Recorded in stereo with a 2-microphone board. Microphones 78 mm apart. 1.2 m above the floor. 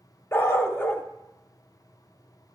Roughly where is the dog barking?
Left.